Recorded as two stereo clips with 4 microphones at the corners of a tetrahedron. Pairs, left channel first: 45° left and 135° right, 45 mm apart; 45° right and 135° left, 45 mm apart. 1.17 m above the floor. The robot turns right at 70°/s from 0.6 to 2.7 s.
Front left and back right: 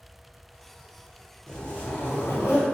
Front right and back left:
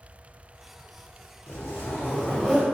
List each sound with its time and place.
1.5 s a zipper: 35° right, 1.1 m; by 2.6 s 45° left, 1.1 m